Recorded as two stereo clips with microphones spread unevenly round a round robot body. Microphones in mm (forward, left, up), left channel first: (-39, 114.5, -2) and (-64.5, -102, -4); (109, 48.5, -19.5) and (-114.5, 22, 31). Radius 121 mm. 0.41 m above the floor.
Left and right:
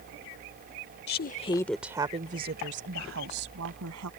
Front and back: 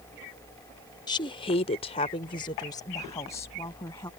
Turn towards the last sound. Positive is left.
turn(degrees=-70)